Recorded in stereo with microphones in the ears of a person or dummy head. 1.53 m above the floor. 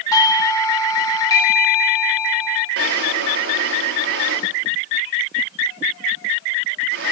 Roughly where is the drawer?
Right.